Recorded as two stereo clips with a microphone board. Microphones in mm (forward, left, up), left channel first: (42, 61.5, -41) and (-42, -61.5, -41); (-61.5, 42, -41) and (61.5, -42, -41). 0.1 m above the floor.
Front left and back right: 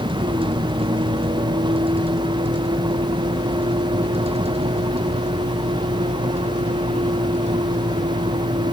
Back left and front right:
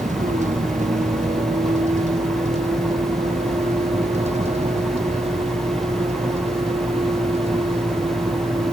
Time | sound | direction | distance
0.0 | a vehicle | 70° right | ?